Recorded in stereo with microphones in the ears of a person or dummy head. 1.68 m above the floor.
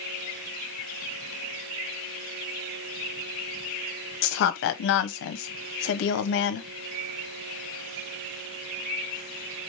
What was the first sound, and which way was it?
A woman speaking, 60° left (ahead or behind).